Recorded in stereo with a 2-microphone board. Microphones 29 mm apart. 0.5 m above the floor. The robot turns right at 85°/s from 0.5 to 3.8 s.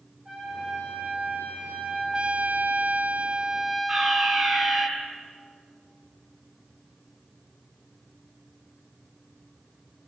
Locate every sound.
0.2 s a trumpet: 150° right, 9 m; by 2.2 s straight ahead, 9 m
2.1 s a trumpet: 150° right, 1.2 m; by 4.9 s 10° right, 1.2 m
3.9 s a fire alarm: 25° right (ahead or behind), 8.5 m